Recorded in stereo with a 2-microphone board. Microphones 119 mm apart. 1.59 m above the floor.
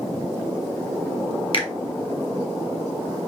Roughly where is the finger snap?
Left.